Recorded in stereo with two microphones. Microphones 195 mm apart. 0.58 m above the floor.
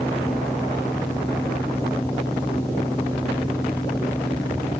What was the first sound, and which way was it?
Only background noise.